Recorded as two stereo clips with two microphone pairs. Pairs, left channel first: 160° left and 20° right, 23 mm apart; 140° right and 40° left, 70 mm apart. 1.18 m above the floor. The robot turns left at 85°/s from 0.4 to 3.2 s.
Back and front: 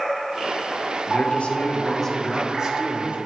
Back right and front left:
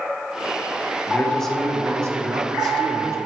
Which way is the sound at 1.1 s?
170° left.